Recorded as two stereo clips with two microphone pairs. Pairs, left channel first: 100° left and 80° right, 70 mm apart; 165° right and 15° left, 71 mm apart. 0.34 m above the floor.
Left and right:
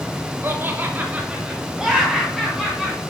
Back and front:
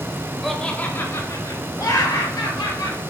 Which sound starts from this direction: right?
Laughter, at 0.4 s.